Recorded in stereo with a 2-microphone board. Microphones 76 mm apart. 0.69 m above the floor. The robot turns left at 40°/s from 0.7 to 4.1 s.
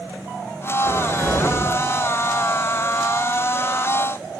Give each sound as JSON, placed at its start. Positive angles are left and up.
{"t": 0.8, "sound": "a cupboard door", "azimuth_deg": -100, "distance_m": 0.6}